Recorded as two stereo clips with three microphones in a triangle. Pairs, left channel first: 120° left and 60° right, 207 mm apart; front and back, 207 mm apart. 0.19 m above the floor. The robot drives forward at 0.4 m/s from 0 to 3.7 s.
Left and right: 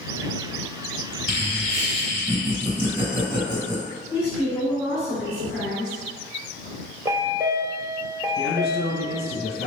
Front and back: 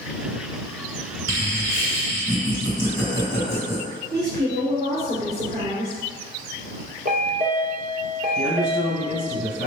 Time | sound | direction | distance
1.3 | laughter | 50° right | 1.8 m
4.1 | a woman speaking | 155° right | 1.8 m
7.0 | a chime | 135° right | 1.0 m
8.4 | a man speaking | 135° left | 1.8 m